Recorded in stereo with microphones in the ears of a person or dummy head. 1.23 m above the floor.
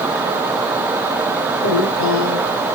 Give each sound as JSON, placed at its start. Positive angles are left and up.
{"t": 1.6, "sound": "a woman speaking", "side_deg": 85, "distance_m": 5.0}